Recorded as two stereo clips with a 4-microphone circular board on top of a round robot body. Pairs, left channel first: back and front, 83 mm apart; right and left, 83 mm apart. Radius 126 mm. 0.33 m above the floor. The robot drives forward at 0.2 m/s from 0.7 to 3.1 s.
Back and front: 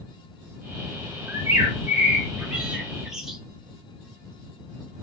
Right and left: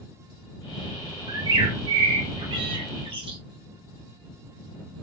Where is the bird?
60° left, 1.0 m; by 3.4 s 85° left, 0.9 m.